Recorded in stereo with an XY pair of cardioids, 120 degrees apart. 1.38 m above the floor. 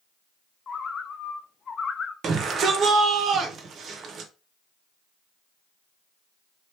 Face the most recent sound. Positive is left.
turn(degrees=-50)